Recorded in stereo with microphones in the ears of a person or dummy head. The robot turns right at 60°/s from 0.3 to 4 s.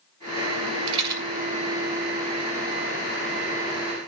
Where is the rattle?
35° right (ahead or behind), 2 m; by 1.2 s 15° right (ahead or behind), 2 m.